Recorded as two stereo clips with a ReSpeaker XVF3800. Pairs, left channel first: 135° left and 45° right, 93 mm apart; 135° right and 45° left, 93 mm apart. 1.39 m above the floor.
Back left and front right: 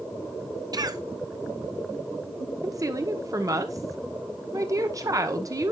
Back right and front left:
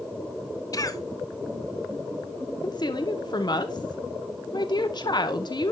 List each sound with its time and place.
0.7 s a cough: 85° right, 0.8 m
2.6 s a woman speaking: 95° right, 1.0 m